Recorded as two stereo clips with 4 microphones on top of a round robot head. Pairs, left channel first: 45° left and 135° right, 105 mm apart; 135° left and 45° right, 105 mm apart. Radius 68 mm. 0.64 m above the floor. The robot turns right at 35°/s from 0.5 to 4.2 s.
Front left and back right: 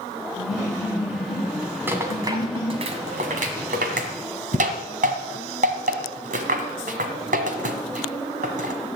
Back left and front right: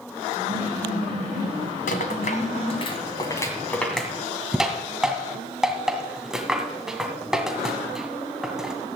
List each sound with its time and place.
0.4 s laughter: 20° left, 8 m; by 2.9 s 105° left, 8 m
1.9 s a rattle: 150° left, 1.9 m; by 8.7 s 130° right, 1.9 m